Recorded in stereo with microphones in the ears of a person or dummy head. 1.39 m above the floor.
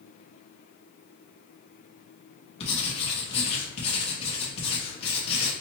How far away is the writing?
About 1.0 m.